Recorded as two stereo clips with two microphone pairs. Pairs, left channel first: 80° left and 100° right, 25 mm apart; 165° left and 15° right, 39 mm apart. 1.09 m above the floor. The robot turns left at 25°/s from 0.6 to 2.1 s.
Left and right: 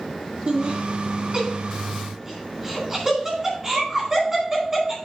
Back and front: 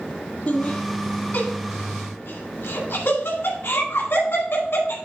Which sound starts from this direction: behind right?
Laughter, at 0.5 s.